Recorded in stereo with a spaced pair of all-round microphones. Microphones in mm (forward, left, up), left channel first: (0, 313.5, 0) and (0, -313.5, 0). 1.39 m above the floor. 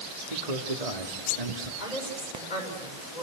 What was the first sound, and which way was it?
A man speaking, 65° right (ahead or behind).